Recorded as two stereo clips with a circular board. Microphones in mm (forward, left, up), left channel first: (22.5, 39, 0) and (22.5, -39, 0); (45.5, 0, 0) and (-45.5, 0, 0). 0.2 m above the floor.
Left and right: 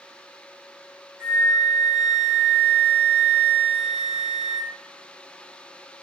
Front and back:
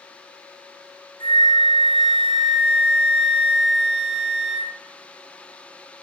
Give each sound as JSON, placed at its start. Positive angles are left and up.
{"t": 1.2, "sound": "a flute", "azimuth_deg": -170, "distance_m": 0.9}